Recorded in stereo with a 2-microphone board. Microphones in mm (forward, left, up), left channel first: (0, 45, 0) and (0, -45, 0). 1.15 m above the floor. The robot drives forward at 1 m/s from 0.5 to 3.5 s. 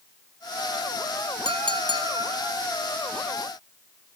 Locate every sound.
1.4 s a clink: 70° right (ahead or behind), 1.6 m; by 2.5 s 45° right (ahead or behind), 2 m